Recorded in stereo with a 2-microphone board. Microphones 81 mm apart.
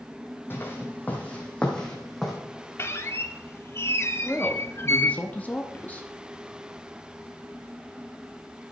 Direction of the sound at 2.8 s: 35° left (ahead or behind).